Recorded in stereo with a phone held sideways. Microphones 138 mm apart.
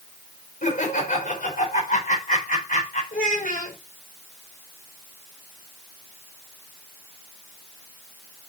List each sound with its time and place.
0.6 s laughter: 80° left, 4.5 m
3.1 s a child speaking: 75° left (ahead or behind), 3.5 m